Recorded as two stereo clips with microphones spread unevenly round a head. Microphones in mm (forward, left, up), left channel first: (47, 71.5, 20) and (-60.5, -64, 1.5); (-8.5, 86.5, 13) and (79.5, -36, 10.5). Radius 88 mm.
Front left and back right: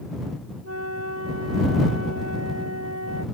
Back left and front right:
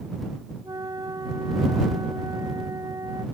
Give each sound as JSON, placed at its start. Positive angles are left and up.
{"t": 0.6, "sound": "a flute", "azimuth_deg": -125}